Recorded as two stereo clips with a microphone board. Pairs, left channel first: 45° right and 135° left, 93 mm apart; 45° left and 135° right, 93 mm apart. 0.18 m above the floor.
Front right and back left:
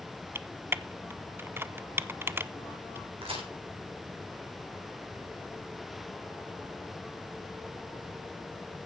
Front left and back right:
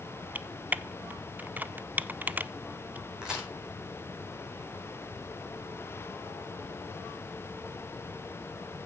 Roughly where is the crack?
Behind left.